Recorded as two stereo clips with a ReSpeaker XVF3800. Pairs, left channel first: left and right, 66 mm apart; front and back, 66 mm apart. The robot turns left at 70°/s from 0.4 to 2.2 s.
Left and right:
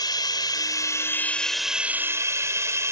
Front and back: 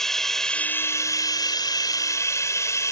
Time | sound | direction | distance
0.0 | running water | 85° left | ?